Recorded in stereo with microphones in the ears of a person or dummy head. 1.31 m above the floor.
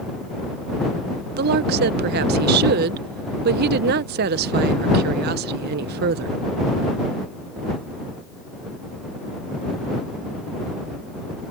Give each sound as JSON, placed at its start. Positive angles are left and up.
{"t": 1.4, "sound": "a woman speaking", "side_deg": -55}